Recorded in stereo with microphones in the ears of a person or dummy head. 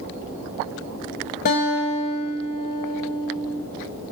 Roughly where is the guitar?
Left.